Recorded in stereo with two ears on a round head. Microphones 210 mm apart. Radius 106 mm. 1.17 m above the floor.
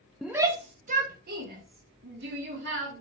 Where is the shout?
Centre (ahead or behind), 0.5 m; by 3.0 s 55° right (ahead or behind), 2.5 m.